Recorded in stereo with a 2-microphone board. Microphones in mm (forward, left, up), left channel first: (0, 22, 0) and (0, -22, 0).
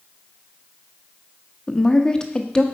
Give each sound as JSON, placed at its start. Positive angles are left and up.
{"t": 1.7, "sound": "a woman speaking", "side_deg": 20, "distance_m": 0.6}